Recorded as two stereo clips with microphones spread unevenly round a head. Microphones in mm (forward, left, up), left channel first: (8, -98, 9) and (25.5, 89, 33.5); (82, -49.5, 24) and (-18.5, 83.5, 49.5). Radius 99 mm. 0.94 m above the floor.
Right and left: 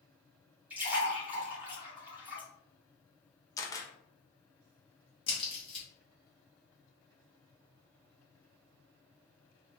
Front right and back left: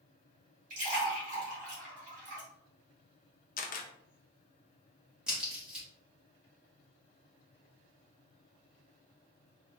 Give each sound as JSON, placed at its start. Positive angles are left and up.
{"t": 0.7, "sound": "a splash", "azimuth_deg": 170, "distance_m": 1.5}
{"t": 3.6, "sound": "a camera shutter", "azimuth_deg": -25, "distance_m": 0.6}
{"t": 5.3, "sound": "a crack", "azimuth_deg": -140, "distance_m": 1.2}